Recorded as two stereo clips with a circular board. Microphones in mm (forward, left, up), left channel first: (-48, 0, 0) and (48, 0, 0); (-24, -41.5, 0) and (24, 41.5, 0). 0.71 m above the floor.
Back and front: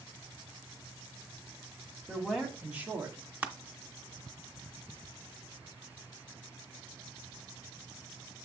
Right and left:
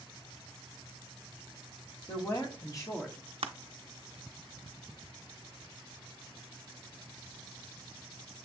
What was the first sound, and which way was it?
A woman speaking, 90° right.